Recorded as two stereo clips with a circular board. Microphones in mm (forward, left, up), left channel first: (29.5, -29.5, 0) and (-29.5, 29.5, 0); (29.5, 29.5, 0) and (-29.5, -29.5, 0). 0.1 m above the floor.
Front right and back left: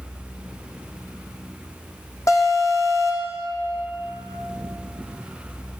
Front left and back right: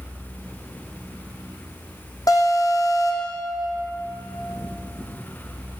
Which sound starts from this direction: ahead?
An alarm, at 2.3 s.